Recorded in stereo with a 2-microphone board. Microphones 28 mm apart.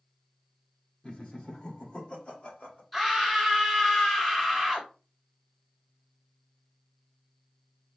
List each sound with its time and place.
1.0 s laughter: 35° left (ahead or behind), 1.1 m; by 2.8 s 45° left (ahead or behind), 1.9 m
2.9 s a scream: centre (ahead or behind), 1.6 m